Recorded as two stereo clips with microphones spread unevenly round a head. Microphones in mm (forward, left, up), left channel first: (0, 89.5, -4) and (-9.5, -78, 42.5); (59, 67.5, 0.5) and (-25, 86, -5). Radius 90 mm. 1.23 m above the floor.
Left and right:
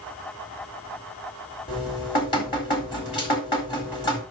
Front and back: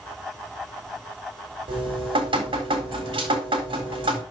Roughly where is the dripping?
Behind left.